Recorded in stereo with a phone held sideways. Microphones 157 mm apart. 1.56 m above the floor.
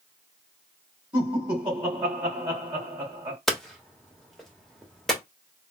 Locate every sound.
1.1 s laughter: 30° right (ahead or behind), 2.5 m
3.5 s hammering: centre (ahead or behind), 1.1 m